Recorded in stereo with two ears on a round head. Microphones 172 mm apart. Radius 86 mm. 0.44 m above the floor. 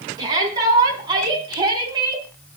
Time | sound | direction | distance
0.2 | a shout | 20° right (ahead or behind) | 5 m